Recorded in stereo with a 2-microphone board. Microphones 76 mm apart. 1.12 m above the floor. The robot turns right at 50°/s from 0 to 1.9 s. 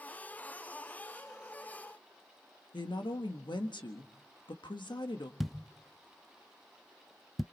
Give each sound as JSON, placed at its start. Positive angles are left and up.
{"t": 2.7, "sound": "a woman speaking", "side_deg": 85, "distance_m": 1.4}
{"t": 5.4, "sound": "a thud", "side_deg": 0, "distance_m": 0.6}